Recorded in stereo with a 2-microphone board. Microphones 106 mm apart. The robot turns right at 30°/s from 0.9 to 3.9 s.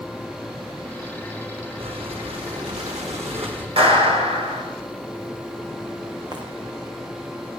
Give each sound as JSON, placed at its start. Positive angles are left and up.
{"t": 1.8, "sound": "breathing", "azimuth_deg": -110, "distance_m": 4.0}
{"t": 3.8, "sound": "a clap", "side_deg": -65, "distance_m": 5.5}
{"t": 6.3, "sound": "footsteps", "side_deg": -45, "distance_m": 4.0}